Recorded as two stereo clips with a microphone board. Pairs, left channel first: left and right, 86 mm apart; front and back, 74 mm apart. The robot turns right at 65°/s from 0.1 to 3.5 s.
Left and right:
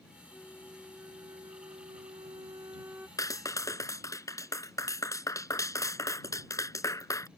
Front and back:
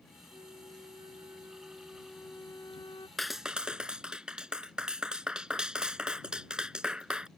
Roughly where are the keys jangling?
I don't hear keys jangling.